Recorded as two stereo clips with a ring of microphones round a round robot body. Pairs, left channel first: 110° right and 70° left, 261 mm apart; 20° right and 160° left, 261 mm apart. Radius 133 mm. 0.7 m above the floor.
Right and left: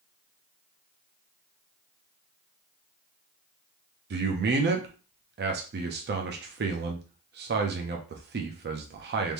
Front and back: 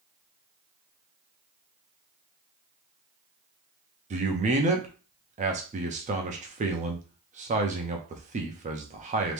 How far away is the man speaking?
About 0.6 m.